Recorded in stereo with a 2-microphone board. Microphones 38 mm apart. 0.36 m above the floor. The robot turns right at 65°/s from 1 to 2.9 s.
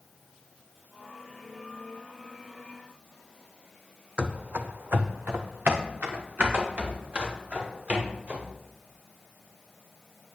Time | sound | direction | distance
4.2 | running footsteps | 25° right (ahead or behind) | 0.7 m